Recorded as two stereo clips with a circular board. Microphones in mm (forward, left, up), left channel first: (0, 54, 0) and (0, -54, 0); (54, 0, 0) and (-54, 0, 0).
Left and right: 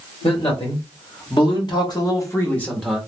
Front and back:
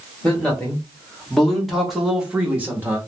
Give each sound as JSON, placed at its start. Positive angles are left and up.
{"t": 0.2, "sound": "a man speaking", "azimuth_deg": 80, "distance_m": 1.8}